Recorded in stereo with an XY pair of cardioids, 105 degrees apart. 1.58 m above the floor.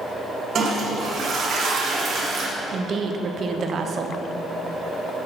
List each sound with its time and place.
0.6 s a toilet flushing: 50° right, 1.9 m
2.7 s a woman speaking: 50° right, 0.9 m